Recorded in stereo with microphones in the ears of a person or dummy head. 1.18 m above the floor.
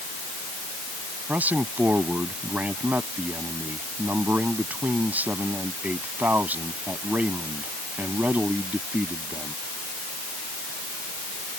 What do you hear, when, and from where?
1.3 s a man speaking: 10° right (ahead or behind)